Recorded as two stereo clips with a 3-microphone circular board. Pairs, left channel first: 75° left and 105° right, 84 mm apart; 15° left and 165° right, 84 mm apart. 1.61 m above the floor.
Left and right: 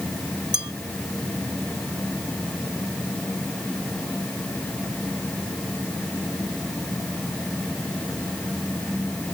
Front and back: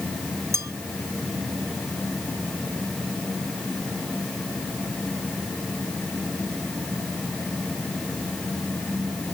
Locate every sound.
0.5 s a bell: 120° right